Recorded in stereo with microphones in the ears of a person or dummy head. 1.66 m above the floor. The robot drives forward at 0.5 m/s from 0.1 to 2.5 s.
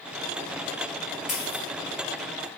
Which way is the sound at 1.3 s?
Centre (ahead or behind).